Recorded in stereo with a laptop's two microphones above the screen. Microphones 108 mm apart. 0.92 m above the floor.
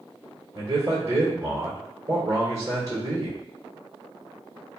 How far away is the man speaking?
About 1.9 m.